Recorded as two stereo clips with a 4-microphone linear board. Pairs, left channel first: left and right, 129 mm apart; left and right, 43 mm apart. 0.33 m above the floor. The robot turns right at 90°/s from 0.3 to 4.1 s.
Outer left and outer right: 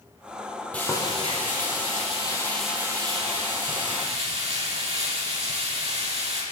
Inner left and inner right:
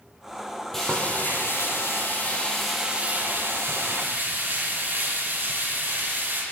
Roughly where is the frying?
Ahead.